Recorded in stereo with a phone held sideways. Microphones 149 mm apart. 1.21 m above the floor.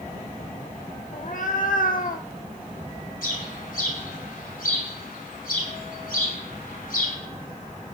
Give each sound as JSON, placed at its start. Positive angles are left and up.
{"t": 1.1, "sound": "a cat meowing", "side_deg": 60, "distance_m": 1.2}
{"t": 3.2, "sound": "a bird", "side_deg": 75, "distance_m": 6.0}